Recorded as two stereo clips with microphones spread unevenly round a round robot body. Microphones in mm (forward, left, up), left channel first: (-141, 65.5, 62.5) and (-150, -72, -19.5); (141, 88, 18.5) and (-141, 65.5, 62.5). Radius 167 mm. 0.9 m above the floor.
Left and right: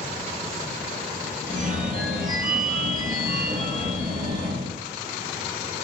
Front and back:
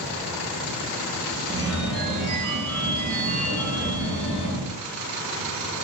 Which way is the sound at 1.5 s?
95° right.